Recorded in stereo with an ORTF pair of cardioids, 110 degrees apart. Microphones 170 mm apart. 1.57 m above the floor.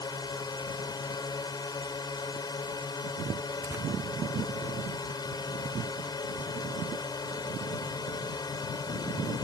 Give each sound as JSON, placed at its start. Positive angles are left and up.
{"t": 0.0, "sound": "a drone", "azimuth_deg": 25}
{"t": 3.6, "sound": "tearing paper", "azimuth_deg": -15}